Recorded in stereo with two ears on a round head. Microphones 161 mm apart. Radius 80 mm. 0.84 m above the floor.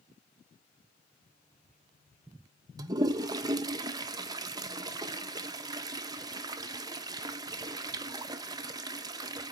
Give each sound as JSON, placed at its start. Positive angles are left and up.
{"t": 2.8, "sound": "a toilet flushing", "side_deg": -20, "distance_m": 0.5}